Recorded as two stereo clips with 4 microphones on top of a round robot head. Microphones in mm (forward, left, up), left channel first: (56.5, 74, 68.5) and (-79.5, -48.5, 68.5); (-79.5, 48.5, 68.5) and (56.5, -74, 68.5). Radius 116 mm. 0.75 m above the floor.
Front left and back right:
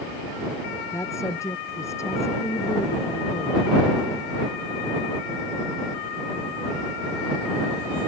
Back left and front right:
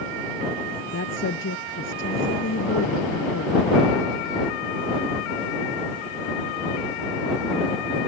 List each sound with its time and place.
0.9 s a woman speaking: 115° left